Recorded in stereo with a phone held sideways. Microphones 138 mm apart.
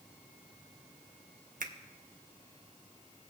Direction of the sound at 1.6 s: 75° right (ahead or behind).